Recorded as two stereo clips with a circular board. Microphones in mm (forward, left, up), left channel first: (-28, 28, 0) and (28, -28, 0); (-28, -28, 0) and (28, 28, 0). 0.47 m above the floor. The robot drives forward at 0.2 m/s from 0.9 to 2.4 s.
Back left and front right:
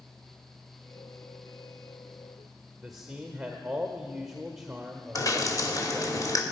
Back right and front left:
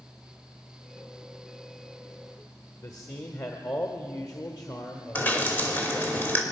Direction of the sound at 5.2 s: 165° left.